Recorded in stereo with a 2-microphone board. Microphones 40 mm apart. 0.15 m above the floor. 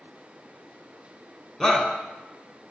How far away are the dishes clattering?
No dishes clattering in this recording.